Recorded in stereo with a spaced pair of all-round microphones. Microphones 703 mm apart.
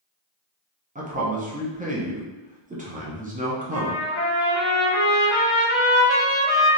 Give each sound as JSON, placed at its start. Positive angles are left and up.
{"t": 0.9, "sound": "a man speaking", "side_deg": -10, "distance_m": 0.7}
{"t": 3.7, "sound": "a trumpet", "side_deg": 75, "distance_m": 1.3}